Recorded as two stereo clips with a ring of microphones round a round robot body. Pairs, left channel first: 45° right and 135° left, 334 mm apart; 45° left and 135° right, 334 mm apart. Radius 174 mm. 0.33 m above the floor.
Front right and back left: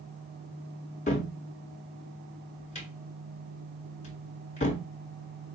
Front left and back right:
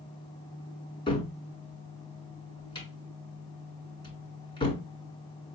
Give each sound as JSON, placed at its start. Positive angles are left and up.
{"t": 1.1, "sound": "a cupboard door", "azimuth_deg": -10, "distance_m": 1.5}